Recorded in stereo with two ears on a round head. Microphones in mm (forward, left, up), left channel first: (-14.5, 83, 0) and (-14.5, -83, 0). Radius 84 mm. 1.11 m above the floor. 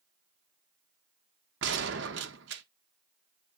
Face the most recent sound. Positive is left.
turn(degrees=-65)  # may be behind; listen again after turning